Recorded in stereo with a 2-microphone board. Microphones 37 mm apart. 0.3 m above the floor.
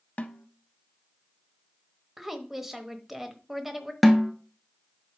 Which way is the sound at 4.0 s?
Centre (ahead or behind).